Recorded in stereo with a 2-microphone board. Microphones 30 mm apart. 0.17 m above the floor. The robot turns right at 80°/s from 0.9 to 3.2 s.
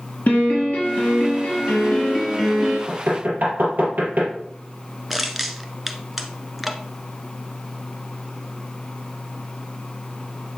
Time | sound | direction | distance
0.3 | a piano | 75° left | 4 m
2.9 | knocking | 65° right (ahead or behind) | 3 m
5.1 | crushing | 10° right (ahead or behind) | 0.9 m